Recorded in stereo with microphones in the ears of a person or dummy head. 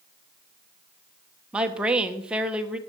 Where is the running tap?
I don't hear a running tap.